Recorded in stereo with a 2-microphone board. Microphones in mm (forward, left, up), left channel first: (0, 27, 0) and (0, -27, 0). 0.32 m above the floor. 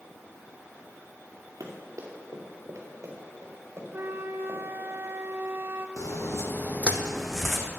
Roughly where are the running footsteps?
Right.